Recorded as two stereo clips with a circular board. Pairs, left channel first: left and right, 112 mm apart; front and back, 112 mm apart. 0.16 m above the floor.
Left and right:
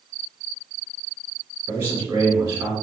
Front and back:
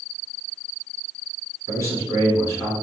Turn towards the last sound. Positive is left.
turn(degrees=-40)